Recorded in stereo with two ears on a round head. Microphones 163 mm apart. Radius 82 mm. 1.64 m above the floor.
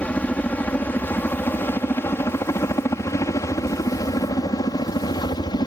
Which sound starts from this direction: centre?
A helicopter, at 0.0 s.